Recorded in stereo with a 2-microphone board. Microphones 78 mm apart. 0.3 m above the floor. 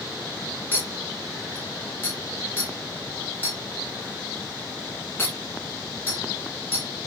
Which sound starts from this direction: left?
A clink, at 0.7 s.